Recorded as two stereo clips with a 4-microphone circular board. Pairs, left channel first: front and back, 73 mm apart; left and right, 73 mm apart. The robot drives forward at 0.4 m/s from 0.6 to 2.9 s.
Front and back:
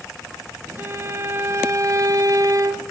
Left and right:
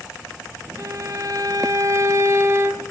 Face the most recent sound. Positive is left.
turn(degrees=-145)